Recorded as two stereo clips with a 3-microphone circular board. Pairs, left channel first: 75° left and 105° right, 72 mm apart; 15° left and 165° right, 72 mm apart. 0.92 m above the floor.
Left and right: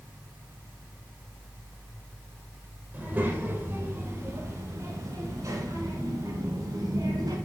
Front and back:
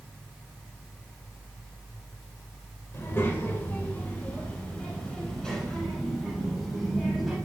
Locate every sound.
2.9 s a child speaking: 40° right, 2.5 m; by 7.3 s 80° right, 3.5 m